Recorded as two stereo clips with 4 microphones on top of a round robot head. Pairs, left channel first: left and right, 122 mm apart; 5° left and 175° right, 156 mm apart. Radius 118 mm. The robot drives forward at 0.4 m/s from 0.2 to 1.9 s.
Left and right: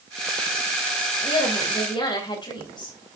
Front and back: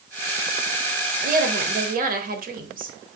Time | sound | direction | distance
1.2 | a woman speaking | 150° left | 2.5 m